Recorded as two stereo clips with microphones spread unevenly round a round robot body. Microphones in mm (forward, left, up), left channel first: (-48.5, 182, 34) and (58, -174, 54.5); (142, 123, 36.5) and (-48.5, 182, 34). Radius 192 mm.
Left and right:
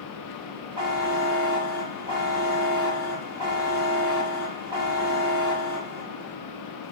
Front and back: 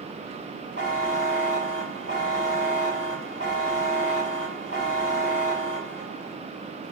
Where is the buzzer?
150° right, 7 m.